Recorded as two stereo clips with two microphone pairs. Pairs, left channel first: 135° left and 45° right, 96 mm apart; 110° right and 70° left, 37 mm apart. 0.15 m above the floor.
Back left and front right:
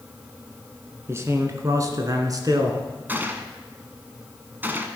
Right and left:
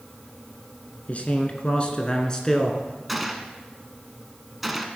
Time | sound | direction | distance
1.1 | a man speaking | 90° right | 1.8 m
3.1 | a gunshot | 15° right | 1.1 m